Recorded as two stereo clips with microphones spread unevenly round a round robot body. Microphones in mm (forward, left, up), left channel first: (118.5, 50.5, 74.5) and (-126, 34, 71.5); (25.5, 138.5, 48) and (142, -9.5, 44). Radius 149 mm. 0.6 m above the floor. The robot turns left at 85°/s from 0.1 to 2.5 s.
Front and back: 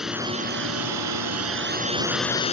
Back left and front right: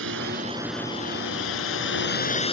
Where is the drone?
90° right; by 2.5 s 70° left.